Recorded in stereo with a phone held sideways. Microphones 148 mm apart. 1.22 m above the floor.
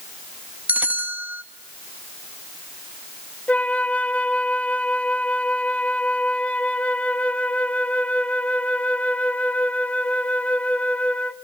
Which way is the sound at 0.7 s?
10° right (ahead or behind).